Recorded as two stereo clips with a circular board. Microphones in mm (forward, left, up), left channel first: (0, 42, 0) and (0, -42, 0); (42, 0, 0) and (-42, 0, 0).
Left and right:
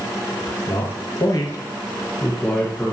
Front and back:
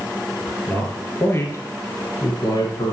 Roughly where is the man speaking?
Left.